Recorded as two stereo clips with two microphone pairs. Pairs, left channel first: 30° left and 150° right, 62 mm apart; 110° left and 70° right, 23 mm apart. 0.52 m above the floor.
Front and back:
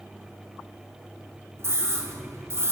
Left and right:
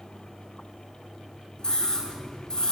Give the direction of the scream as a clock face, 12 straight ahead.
6 o'clock.